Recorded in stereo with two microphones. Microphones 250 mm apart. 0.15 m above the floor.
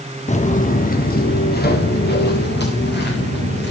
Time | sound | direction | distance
0.3 | footsteps | 25° left (ahead or behind) | 1.3 m